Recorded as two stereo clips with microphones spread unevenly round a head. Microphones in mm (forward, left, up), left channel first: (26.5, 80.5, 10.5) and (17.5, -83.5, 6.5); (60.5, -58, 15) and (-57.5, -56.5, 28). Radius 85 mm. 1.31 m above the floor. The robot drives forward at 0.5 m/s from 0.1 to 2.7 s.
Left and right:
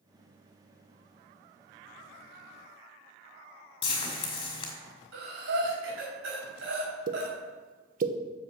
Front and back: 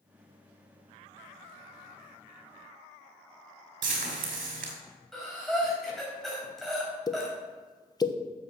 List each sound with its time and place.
3.8 s frying: 150° left, 2.0 m
5.1 s breathing: 90° right, 4 m
7.1 s a pop: 55° right, 1.0 m